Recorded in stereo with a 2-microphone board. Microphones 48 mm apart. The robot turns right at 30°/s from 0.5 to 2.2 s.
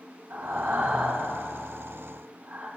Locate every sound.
0.3 s breathing: 65° right (ahead or behind), 3.5 m; by 2.7 s 35° right (ahead or behind), 3.5 m